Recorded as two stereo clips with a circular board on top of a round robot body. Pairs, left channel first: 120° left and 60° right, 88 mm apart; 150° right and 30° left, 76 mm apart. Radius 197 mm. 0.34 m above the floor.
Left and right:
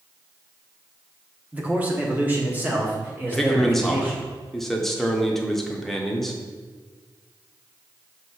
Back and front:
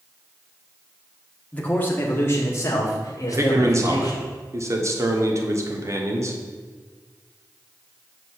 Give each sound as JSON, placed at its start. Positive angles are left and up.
{"t": 1.5, "sound": "a man speaking", "azimuth_deg": -105, "distance_m": 1.5}
{"t": 3.3, "sound": "a man speaking", "azimuth_deg": 35, "distance_m": 1.8}